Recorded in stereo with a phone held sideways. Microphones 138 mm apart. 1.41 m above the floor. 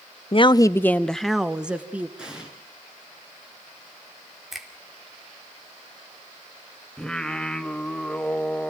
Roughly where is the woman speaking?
Left.